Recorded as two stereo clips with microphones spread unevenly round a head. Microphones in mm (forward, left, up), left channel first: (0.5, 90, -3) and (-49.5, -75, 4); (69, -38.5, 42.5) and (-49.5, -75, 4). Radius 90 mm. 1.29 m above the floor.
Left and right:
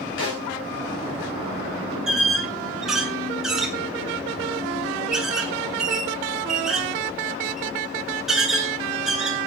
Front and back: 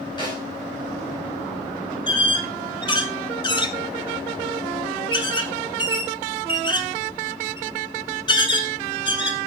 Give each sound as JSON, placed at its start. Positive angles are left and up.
{"t": 0.2, "sound": "a snare drum", "azimuth_deg": 85, "distance_m": 5.0}
{"t": 2.1, "sound": "a squeak", "azimuth_deg": -20, "distance_m": 1.8}